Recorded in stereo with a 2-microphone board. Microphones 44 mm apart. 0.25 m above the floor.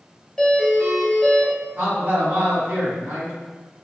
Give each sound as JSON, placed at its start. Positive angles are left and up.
{"t": 0.4, "sound": "a doorbell", "side_deg": 10, "distance_m": 1.6}
{"t": 1.8, "sound": "a man speaking", "side_deg": -50, "distance_m": 1.8}